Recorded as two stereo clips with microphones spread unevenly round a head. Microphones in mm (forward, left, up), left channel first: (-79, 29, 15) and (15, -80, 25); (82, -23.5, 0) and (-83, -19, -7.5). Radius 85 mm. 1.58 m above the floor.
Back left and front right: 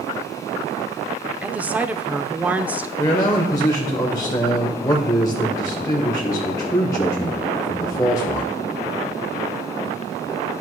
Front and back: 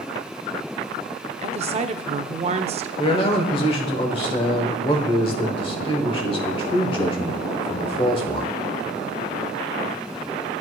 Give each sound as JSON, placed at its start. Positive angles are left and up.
{"t": 1.4, "sound": "a woman speaking", "azimuth_deg": -130, "distance_m": 0.6}
{"t": 3.0, "sound": "a man speaking", "azimuth_deg": 60, "distance_m": 1.0}